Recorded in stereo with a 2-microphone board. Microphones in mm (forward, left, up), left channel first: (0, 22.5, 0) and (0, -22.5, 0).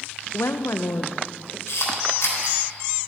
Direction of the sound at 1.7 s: 75° left (ahead or behind).